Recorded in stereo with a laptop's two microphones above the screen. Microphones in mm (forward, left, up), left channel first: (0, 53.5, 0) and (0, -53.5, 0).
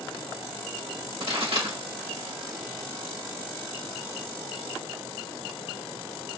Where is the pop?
80° right, 3.5 m.